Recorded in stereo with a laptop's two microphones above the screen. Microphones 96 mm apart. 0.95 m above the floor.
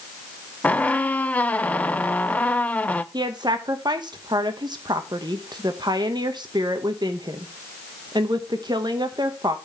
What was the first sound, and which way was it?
A squeak, 15° left (ahead or behind).